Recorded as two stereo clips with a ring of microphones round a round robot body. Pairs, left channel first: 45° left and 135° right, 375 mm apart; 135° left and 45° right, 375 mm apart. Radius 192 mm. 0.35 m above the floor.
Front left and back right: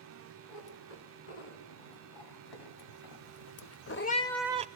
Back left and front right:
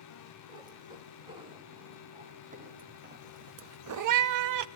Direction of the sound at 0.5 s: 35° left.